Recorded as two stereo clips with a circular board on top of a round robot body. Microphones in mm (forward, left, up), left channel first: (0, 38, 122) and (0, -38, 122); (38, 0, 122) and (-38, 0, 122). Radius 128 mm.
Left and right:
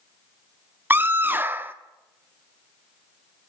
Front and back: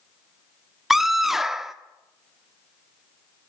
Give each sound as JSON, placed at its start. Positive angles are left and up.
{"t": 0.9, "sound": "a scream", "azimuth_deg": -100, "distance_m": 1.3}